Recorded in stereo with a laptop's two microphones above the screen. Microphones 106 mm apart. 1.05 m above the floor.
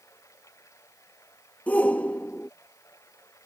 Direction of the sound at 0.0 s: 30° left (ahead or behind).